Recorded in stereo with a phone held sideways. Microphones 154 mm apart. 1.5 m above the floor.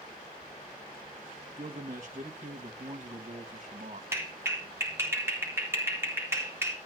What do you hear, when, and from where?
1.6 s a man speaking: 55° right (ahead or behind), 1.9 m
4.1 s a clap: 15° right (ahead or behind), 3.5 m